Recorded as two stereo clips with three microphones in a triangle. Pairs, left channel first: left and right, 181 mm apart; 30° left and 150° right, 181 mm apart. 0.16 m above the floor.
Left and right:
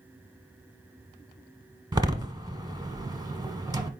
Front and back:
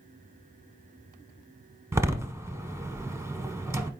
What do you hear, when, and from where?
1.9 s a door slam: 105° right, 0.8 m